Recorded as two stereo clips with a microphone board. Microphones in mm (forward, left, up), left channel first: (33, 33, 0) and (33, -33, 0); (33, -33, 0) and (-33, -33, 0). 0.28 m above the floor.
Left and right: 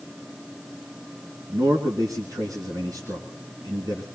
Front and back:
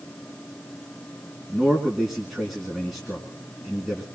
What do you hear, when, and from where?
1.5 s a man speaking: 95° right, 3 m